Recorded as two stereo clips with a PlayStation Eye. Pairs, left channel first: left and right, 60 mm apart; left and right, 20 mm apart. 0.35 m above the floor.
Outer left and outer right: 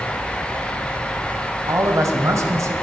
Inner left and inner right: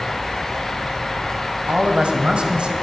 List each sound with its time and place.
1.7 s a man speaking: 55° right (ahead or behind), 1.7 m